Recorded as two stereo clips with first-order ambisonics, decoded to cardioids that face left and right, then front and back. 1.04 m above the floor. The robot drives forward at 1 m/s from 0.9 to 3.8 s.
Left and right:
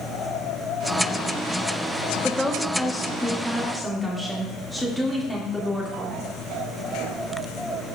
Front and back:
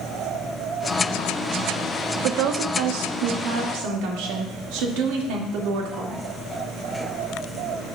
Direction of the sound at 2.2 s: 175° left.